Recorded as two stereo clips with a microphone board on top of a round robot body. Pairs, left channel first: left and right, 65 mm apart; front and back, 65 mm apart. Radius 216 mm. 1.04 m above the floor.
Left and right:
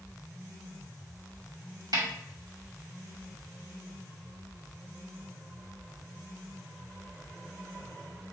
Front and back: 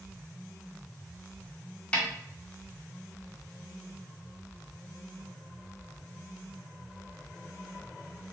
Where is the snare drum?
75° right, 2 m.